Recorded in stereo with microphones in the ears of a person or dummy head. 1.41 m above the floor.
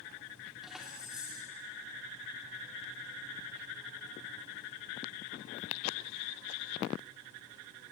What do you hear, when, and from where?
0.6 s keys jangling: 5° left (ahead or behind), 3 m